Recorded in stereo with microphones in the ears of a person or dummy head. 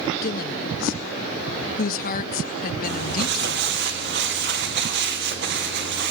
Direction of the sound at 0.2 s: 50° left (ahead or behind).